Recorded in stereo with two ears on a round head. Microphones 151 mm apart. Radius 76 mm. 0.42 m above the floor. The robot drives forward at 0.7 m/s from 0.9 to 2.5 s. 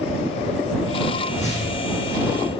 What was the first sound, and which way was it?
A whoosh, 45° left (ahead or behind).